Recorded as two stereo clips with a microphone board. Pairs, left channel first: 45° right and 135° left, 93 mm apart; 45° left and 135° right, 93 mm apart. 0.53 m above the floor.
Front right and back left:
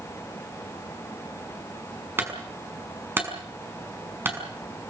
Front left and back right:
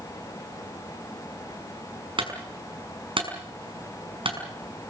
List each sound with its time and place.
2.2 s a clunk: 160° right, 6 m